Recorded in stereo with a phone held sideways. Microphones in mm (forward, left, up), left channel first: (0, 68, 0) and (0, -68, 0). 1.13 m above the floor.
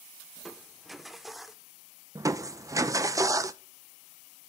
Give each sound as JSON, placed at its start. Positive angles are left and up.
{"t": 0.4, "sound": "crushing", "side_deg": 0, "distance_m": 0.7}
{"t": 2.1, "sound": "crushing", "side_deg": -25, "distance_m": 0.7}